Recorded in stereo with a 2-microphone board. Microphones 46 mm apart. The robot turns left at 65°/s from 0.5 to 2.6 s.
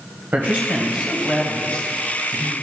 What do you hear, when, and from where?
0.3 s a man speaking: 135° right, 1.3 m; by 2.5 s 95° left, 1.3 m